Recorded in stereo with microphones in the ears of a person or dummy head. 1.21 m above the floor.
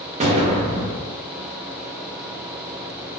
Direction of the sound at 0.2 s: 30° right (ahead or behind).